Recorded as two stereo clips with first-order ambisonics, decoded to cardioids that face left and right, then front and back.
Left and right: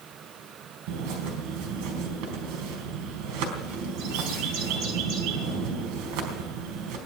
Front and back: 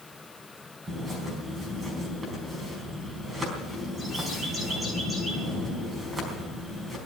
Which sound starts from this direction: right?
A bird, at 0.9 s.